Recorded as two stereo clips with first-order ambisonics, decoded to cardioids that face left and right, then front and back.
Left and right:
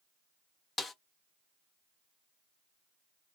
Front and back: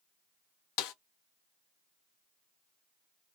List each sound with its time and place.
0.8 s a snare drum: 15° left, 0.5 m